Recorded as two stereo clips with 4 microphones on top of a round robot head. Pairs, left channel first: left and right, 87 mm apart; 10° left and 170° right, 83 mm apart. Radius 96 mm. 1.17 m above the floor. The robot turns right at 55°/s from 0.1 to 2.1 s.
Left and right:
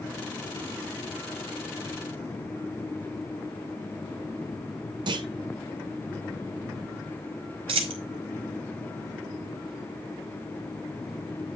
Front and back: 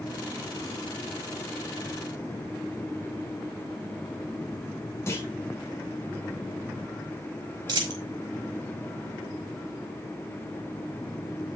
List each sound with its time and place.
5.1 s a clunk: 60° right, 0.7 m
7.7 s a dropped coin: 120° right, 1.5 m